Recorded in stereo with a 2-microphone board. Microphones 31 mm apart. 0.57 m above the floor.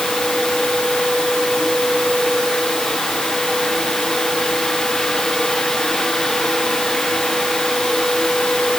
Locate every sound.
Only background noise.